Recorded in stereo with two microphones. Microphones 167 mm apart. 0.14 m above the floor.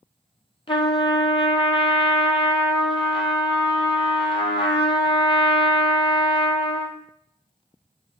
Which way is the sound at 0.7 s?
35° left (ahead or behind).